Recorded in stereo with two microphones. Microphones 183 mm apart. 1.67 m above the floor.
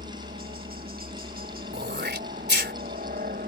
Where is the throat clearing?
80° right.